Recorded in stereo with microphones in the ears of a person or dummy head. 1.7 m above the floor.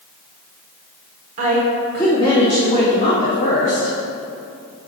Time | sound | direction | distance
1.4 | a woman speaking | 40° right (ahead or behind) | 1.0 m